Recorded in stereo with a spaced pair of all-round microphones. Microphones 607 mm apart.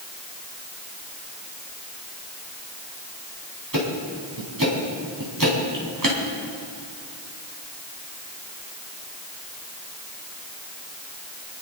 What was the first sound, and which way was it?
Ticking, 35° right (ahead or behind).